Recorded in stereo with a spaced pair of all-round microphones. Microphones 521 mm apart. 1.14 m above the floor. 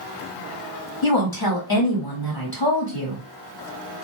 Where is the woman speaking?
40° left (ahead or behind), 1.7 m.